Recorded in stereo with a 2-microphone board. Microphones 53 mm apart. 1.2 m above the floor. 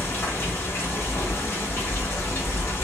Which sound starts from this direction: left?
Running water, at 0.0 s.